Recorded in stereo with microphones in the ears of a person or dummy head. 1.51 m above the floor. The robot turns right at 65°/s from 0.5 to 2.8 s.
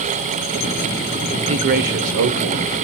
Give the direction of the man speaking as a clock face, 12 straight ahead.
5 o'clock.